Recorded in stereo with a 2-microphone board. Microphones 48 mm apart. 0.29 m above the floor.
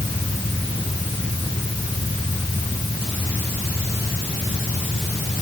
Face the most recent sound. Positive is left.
No sound to turn to.